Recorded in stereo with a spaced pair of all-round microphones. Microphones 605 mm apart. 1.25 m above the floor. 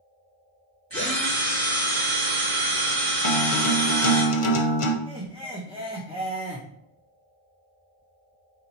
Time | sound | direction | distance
0.9 | a drill | 45° right (ahead or behind) | 2.5 m
3.2 | a guitar | 60° left (ahead or behind) | 0.6 m
5.1 | laughter | 10° right (ahead or behind) | 0.7 m